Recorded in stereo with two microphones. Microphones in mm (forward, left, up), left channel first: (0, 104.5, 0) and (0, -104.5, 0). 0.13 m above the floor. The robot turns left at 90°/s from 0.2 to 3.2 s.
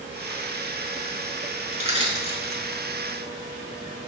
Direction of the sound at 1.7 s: 40° right (ahead or behind).